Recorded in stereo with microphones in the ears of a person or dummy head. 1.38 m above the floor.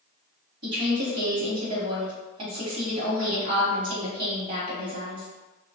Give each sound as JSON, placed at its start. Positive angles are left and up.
{"t": 0.6, "sound": "a woman speaking", "side_deg": -55, "distance_m": 1.1}